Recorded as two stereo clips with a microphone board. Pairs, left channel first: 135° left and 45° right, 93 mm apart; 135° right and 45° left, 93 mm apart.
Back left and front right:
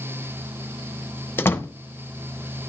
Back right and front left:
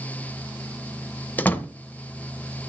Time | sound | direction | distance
1.4 | a door slam | 170° left | 0.8 m